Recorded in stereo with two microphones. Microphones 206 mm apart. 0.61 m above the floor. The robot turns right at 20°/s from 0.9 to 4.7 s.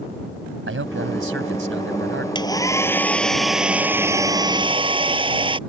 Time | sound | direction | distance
0.7 | a man speaking | 80° right | ?
2.4 | a hair dryer | 160° left | ?